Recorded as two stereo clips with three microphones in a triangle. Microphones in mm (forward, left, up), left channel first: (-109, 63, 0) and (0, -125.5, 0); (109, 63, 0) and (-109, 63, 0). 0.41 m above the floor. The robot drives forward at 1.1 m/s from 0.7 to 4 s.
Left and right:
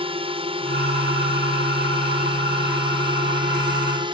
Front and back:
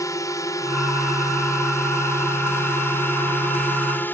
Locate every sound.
0.0 s a drone: 55° right; by 4.2 s 65° right